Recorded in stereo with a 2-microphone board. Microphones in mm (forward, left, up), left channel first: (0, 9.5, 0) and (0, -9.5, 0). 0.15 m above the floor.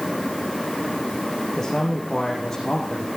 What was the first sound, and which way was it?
A man speaking, 25° left (ahead or behind).